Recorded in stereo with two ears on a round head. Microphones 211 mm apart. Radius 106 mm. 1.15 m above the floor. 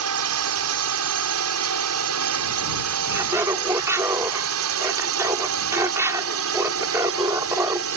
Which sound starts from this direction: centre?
Laughter, at 3.1 s.